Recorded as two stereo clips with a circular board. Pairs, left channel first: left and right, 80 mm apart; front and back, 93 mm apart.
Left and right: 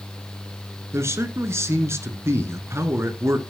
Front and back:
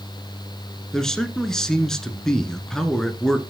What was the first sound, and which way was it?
A man speaking, 80° right.